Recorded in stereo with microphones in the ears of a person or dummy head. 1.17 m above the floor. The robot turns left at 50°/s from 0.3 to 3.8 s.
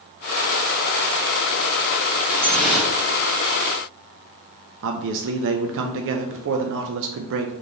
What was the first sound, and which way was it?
Dripping, 20° left.